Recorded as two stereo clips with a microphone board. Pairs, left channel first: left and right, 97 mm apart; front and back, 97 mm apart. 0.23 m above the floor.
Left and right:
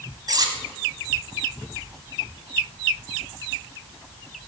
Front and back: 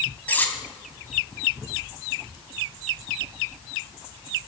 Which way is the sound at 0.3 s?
65° right.